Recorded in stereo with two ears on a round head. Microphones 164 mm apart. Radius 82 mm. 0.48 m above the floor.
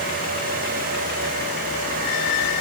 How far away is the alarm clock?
No alarm clock in this recording.